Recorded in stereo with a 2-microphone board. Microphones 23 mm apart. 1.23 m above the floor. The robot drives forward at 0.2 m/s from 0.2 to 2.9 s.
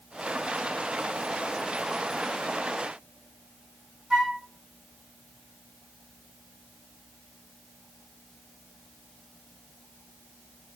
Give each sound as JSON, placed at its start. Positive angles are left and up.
{"t": 4.1, "sound": "a flute", "side_deg": -25, "distance_m": 1.5}